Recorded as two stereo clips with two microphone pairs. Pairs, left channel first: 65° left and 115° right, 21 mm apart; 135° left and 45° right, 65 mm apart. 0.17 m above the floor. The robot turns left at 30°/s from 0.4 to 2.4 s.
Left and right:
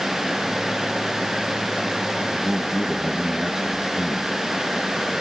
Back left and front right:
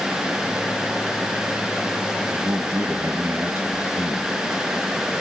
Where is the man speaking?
50° right, 1.2 m; by 4.3 s 55° right, 1.2 m.